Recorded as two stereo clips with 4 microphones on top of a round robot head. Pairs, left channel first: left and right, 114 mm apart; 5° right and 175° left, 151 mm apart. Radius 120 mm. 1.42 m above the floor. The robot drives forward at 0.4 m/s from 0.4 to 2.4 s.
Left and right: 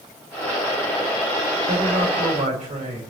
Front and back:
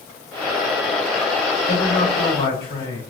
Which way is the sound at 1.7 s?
70° right.